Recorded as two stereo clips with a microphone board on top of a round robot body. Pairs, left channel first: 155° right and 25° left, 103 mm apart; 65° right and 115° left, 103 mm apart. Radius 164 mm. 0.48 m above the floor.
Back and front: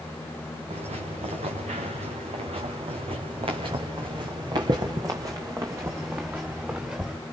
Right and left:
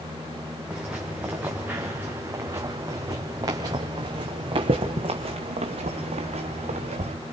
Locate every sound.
0.7 s footsteps: 30° left, 3.5 m; by 7.2 s 100° left, 3 m